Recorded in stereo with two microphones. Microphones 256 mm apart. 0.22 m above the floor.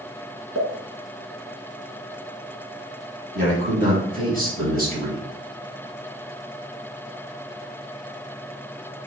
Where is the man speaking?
35° right (ahead or behind), 2.0 m.